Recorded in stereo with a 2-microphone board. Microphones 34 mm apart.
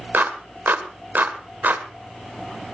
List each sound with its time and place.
0.1 s a clap: 65° right (ahead or behind), 1.6 m